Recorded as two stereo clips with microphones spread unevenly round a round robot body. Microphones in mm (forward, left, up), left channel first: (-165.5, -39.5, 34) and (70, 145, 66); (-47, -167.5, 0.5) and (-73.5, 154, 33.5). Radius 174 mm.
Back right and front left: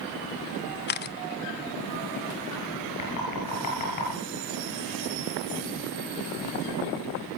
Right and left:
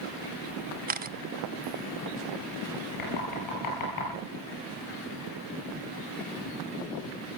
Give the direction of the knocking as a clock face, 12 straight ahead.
4 o'clock.